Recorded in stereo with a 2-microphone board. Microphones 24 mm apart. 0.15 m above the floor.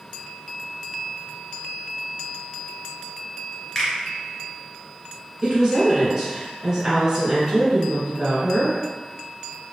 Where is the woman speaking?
30° right (ahead or behind), 1.7 m.